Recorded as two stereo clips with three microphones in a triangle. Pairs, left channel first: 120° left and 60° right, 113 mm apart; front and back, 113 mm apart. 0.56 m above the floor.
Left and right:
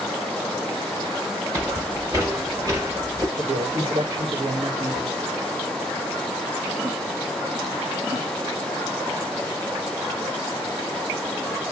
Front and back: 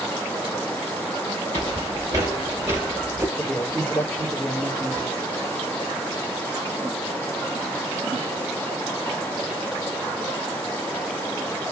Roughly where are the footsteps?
Behind right.